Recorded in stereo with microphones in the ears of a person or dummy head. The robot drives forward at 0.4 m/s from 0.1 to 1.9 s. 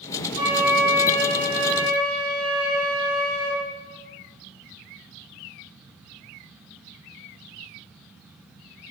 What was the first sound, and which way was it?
A flute, 50° right (ahead or behind).